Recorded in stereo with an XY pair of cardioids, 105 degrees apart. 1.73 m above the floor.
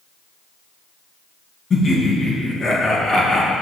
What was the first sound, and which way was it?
Laughter, 35° left.